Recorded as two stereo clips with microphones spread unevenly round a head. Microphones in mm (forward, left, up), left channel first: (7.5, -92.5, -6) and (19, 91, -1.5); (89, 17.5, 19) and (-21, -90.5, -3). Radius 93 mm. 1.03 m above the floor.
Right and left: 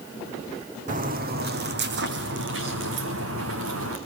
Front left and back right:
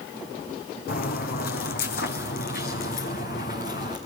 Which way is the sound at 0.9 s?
45° left.